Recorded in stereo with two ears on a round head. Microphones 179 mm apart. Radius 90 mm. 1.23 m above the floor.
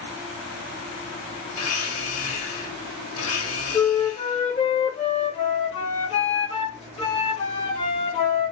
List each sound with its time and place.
1.5 s a blender: 80° left, 1.4 m
3.7 s a flute: 30° left (ahead or behind), 1.1 m